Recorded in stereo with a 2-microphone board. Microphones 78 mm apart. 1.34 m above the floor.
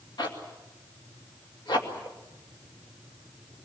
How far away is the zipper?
About 2.5 m.